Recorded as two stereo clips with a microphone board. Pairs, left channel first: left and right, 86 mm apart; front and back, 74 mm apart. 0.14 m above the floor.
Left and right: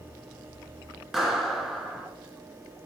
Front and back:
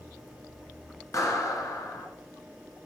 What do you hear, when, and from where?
1.1 s a clap: 5° right, 1.1 m